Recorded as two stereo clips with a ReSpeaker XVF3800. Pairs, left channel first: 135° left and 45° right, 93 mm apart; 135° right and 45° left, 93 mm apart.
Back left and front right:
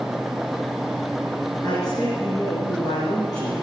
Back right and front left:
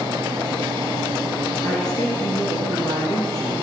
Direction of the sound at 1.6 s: Straight behind.